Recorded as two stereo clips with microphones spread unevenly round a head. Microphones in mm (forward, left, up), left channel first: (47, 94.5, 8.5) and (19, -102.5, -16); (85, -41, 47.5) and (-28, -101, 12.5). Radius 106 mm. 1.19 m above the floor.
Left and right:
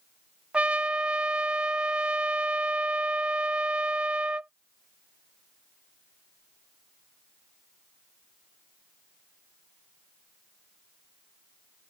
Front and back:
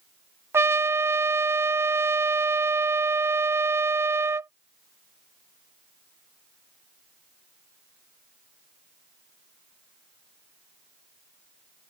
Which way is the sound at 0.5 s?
170° right.